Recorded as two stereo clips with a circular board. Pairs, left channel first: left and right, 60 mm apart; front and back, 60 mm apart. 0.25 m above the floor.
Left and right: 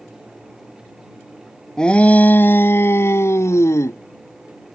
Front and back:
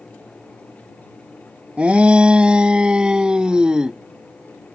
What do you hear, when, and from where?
1.8 s a shout: 145° left; by 4.0 s 105° left